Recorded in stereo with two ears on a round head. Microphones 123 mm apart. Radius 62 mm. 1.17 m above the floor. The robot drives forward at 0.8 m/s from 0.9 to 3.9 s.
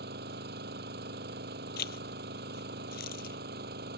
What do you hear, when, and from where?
0.0 s an engine running: 80° right; by 4.0 s 85° right
1.8 s a zipper: 80° left